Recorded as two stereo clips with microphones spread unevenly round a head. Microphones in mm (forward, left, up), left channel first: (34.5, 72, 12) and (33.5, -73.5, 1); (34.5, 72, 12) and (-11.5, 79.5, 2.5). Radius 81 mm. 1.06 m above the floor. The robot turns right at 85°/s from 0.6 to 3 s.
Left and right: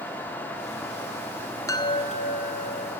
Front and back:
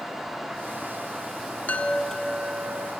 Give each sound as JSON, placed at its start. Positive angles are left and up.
{"t": 1.7, "sound": "a chime", "azimuth_deg": 25, "distance_m": 1.9}